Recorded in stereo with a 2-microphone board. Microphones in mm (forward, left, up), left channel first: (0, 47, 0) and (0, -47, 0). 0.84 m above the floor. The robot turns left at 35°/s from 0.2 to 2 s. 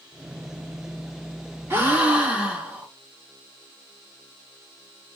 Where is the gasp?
25° right (ahead or behind), 0.9 m; by 2.9 s 15° right (ahead or behind), 0.9 m.